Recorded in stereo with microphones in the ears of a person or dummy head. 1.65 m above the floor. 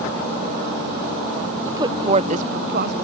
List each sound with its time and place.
1.6 s a woman speaking: 15° right (ahead or behind); by 2.9 s 55° right (ahead or behind)